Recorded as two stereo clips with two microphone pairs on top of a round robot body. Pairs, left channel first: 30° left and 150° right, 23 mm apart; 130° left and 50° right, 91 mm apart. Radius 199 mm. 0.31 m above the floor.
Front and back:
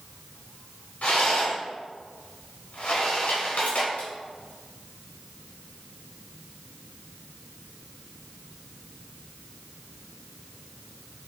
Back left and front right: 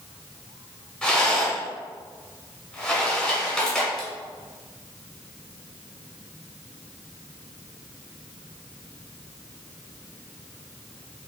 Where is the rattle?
45° left, 1.3 m.